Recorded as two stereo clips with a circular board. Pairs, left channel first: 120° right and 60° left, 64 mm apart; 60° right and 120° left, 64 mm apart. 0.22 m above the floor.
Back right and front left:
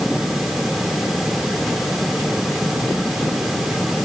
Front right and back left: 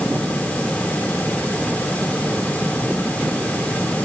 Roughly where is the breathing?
No breathing in this recording.